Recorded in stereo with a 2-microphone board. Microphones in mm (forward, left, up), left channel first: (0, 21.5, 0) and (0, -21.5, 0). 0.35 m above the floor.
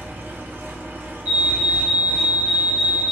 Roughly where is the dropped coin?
I don't hear a dropped coin.